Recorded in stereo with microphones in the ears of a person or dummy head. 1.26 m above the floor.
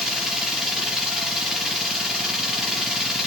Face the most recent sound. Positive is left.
turn(degrees=5)  # may be behind; listen again after turning